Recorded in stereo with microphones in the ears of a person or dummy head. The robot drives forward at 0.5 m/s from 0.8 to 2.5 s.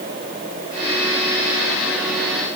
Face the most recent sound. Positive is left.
No sound to turn to.